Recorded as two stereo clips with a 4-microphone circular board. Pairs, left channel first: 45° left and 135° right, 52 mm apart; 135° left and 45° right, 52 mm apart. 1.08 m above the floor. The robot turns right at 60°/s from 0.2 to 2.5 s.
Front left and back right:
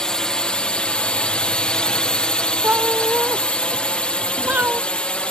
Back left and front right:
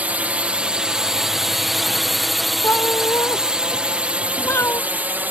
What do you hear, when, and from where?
0.0 s a drone: 20° right; by 5.3 s 15° right
2.6 s a cat meowing: 170° left